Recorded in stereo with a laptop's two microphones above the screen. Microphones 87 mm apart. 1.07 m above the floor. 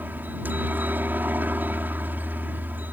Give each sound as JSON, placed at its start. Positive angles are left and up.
{"t": 0.0, "sound": "a helicopter", "side_deg": -20}